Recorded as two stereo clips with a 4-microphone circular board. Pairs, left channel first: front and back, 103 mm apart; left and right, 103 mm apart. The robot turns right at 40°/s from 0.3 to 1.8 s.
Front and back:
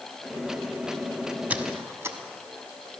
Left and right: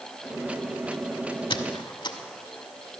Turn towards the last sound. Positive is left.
turn(degrees=120)